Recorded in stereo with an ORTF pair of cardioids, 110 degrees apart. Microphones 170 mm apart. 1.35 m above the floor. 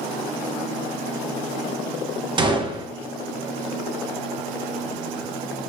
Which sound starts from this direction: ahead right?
A gunshot, at 2.4 s.